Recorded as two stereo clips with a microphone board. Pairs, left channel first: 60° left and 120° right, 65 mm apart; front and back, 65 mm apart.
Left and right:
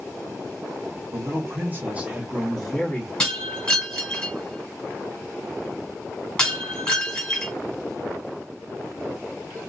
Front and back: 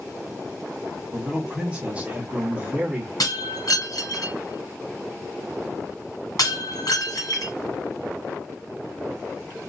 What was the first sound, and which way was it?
A man speaking, 110° right.